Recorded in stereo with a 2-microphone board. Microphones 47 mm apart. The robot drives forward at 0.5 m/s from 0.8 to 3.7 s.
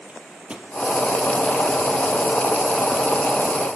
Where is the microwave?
25° right (ahead or behind), 2.5 m.